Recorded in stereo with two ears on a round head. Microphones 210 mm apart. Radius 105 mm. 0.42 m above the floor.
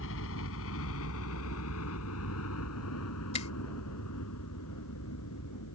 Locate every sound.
0.0 s a helicopter: 60° left (ahead or behind); by 5.8 s 75° left (ahead or behind)
3.3 s a finger snap: 30° left (ahead or behind)